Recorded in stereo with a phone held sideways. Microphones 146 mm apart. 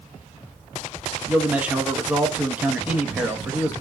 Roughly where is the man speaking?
Centre.